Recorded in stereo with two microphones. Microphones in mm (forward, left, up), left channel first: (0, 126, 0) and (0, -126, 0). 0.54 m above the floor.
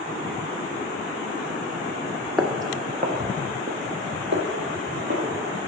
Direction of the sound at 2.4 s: Centre (ahead or behind).